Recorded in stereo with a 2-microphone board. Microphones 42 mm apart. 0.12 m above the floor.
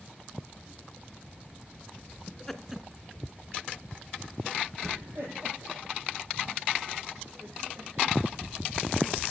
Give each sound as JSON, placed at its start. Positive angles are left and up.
{"t": 2.3, "sound": "laughter", "side_deg": 20, "distance_m": 1.2}